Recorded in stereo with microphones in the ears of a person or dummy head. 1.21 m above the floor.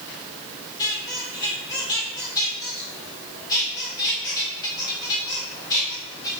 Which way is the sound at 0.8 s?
20° left (ahead or behind).